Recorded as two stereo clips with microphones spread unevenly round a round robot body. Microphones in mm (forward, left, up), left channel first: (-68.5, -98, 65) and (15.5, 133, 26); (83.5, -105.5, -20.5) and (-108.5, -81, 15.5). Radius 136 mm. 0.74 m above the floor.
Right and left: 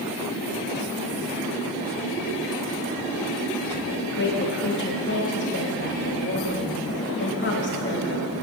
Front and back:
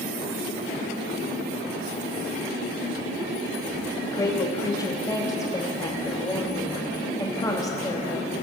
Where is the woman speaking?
70° right, 1.2 m.